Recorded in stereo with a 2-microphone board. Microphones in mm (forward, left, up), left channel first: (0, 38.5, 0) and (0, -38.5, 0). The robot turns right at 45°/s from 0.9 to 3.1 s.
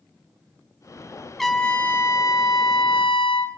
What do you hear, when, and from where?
1.4 s a trumpet: straight ahead, 1.0 m; by 3.5 s 80° left, 1.0 m